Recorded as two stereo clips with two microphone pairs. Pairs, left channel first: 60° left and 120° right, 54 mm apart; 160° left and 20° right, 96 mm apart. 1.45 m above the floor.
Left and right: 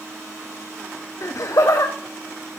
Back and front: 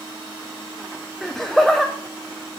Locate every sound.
1.2 s laughter: 70° left, 0.5 m